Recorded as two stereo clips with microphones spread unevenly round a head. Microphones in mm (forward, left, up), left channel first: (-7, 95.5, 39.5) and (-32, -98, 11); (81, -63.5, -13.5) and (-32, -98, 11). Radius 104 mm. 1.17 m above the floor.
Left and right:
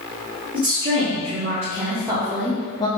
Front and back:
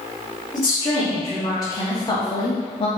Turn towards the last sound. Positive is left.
turn(degrees=15)